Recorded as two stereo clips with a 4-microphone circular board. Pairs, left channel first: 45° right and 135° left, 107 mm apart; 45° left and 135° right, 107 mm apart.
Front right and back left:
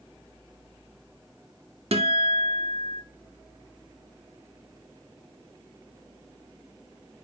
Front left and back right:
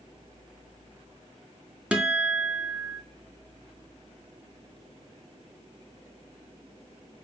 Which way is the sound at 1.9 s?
145° left.